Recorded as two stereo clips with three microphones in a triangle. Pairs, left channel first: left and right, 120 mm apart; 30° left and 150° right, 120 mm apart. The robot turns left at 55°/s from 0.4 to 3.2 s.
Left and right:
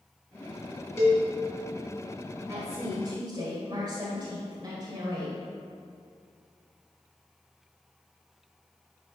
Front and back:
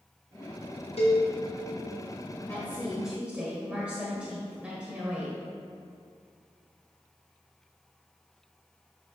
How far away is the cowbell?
About 3 m.